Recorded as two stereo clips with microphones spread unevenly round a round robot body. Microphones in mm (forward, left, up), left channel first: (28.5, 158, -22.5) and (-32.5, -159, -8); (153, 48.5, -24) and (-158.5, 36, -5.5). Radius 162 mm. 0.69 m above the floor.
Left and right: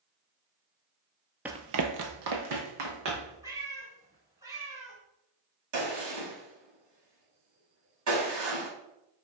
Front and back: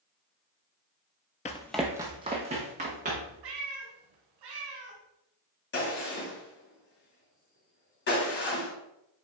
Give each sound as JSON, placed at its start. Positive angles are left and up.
{"t": 1.4, "sound": "running footsteps", "azimuth_deg": -30, "distance_m": 0.7}
{"t": 3.4, "sound": "a cat meowing", "azimuth_deg": 180, "distance_m": 2.0}
{"t": 5.7, "sound": "a gunshot", "azimuth_deg": -60, "distance_m": 2.5}